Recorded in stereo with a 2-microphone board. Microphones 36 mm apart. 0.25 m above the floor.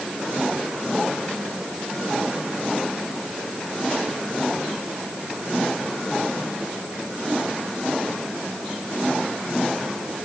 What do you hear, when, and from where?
Only background noise.